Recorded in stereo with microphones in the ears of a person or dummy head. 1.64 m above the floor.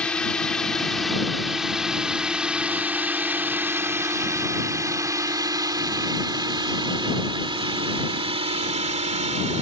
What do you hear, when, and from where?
0.0 s a drone: 5° left (ahead or behind); by 9.6 s 35° right (ahead or behind)